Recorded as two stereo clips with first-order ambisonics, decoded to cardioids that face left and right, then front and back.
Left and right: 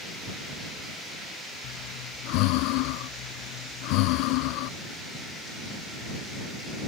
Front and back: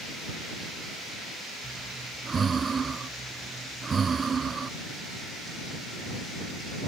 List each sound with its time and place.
1.6 s breathing: 105° left